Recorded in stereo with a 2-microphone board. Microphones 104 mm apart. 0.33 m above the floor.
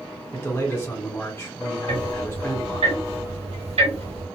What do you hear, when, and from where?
0.3 s a man speaking: 25° left (ahead or behind), 1.5 m
1.9 s ticking: 80° right, 1.9 m